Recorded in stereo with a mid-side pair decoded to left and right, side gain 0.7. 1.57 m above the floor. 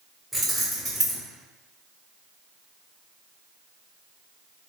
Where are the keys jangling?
10° right, 1.5 m.